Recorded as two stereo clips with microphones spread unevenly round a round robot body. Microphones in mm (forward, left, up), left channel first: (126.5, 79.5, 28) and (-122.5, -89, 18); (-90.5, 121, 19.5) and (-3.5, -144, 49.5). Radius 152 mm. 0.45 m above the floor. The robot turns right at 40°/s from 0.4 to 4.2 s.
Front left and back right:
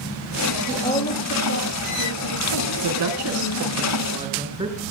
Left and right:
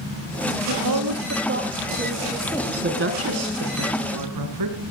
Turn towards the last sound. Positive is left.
turn(degrees=-70)